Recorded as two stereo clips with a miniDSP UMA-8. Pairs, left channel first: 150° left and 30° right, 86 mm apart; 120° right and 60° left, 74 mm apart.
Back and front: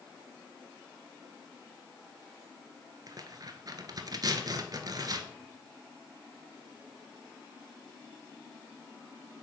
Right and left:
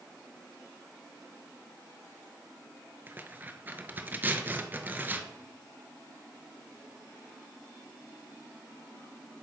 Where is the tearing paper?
Straight ahead, 0.6 m.